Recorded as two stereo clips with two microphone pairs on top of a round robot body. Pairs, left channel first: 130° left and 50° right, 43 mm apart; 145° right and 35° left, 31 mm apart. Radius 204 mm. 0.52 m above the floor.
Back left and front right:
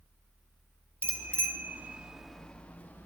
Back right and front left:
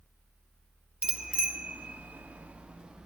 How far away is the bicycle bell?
About 2 m.